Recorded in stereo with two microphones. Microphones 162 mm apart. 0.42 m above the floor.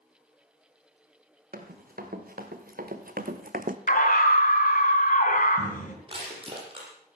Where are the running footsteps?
70° right (ahead or behind), 4 m; by 3.8 s 55° right (ahead or behind), 1.1 m.